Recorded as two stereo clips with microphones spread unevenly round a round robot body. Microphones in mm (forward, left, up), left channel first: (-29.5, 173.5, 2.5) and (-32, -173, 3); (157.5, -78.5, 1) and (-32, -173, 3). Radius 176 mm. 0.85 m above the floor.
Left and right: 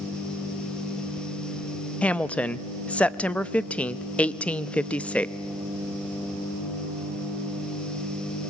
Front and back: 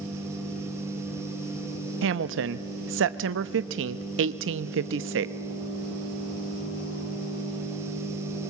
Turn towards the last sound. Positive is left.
turn(degrees=175)